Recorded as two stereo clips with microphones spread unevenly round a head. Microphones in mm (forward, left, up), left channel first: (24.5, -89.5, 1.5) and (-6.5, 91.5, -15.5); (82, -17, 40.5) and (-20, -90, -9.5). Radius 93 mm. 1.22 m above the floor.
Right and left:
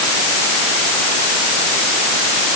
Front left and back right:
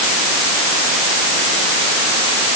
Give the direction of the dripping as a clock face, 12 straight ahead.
I don't hear dripping.